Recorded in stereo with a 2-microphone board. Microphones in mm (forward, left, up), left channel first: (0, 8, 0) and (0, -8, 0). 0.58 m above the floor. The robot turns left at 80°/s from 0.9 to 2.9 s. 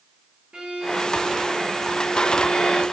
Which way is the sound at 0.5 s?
105° right.